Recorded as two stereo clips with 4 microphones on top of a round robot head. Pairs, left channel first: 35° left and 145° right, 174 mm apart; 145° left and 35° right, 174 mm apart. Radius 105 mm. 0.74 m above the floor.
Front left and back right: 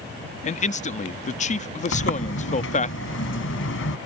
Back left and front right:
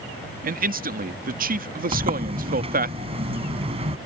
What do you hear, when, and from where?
0.4 s a man speaking: 5° right
1.9 s a sliding door: 25° left